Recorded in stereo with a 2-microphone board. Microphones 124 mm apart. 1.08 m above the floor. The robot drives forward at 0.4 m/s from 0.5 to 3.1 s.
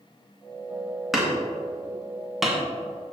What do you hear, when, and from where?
1.1 s hammering: 5° right (ahead or behind), 2.5 m